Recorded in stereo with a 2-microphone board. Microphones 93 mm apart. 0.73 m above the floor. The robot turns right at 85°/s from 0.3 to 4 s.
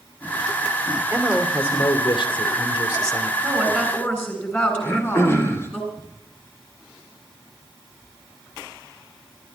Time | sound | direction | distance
1.1 | a man speaking | 30° right | 2.5 m
3.4 | a woman speaking | 30° right | 8 m
4.8 | throat clearing | 25° left (ahead or behind) | 2.5 m